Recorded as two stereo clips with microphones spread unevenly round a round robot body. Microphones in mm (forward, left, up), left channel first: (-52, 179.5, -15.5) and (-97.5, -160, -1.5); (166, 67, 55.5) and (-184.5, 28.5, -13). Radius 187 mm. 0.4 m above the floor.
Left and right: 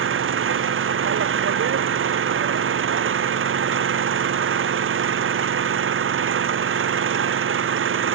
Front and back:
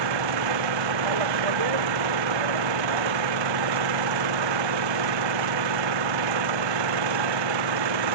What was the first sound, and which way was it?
An engine running, 150° right.